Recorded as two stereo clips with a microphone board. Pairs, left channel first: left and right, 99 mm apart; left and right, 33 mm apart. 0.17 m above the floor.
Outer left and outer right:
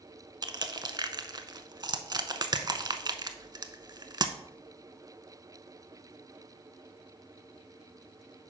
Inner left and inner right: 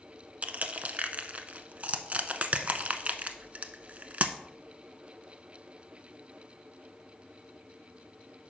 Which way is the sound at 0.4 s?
40° right (ahead or behind).